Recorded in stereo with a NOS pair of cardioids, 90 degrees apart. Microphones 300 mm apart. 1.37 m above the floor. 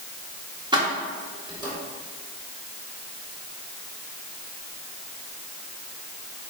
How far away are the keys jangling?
About 1.5 m.